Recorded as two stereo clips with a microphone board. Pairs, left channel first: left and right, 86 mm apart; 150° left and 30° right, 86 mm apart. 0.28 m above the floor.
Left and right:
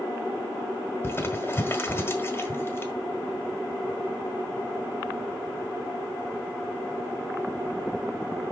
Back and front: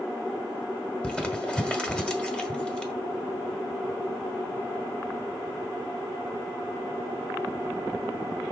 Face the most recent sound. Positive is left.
turn(degrees=85)